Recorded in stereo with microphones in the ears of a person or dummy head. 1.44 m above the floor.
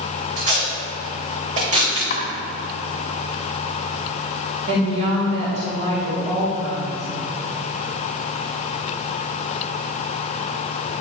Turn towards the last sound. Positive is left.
turn(degrees=-40)  # may be behind; listen again after turning